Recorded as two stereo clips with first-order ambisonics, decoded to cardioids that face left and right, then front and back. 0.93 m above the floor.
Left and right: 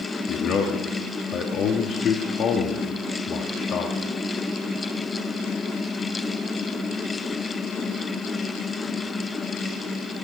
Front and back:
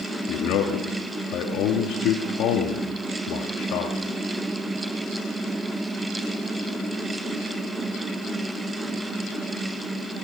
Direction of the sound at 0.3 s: 35° left.